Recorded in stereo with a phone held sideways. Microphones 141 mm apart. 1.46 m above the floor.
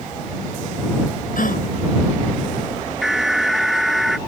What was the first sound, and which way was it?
A gasp, 80° left.